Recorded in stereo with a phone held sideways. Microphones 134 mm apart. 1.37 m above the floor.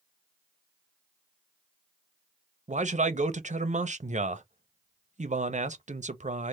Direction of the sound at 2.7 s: 65° right (ahead or behind).